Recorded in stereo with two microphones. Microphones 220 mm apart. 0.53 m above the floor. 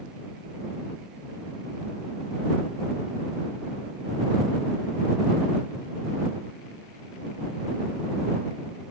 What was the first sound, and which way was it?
Only background noise.